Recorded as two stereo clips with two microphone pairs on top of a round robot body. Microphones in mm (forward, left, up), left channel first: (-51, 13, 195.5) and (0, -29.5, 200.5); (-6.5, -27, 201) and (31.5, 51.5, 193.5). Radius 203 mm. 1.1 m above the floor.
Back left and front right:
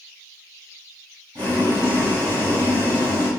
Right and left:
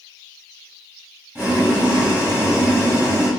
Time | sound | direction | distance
1.4 | boiling | 10° right | 2 m